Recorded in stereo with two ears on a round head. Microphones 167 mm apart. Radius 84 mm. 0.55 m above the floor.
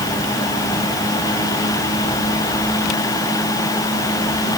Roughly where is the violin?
No violin in this recording.